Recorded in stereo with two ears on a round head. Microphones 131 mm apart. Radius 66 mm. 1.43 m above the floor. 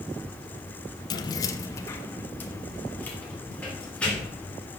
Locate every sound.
1.1 s keys jangling: 30° left (ahead or behind), 0.6 m; by 4.5 s 10° left (ahead or behind), 3.5 m